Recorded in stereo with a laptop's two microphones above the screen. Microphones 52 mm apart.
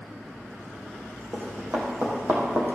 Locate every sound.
1.3 s running footsteps: 35° right (ahead or behind), 3 m; by 2.8 s 40° right (ahead or behind), 2.5 m